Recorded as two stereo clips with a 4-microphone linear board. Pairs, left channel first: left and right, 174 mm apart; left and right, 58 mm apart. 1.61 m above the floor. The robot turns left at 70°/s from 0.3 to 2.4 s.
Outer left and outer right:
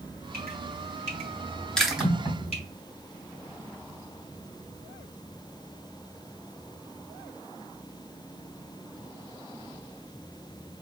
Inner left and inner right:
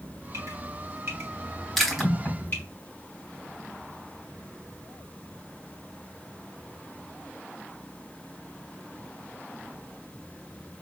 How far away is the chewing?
About 0.8 m.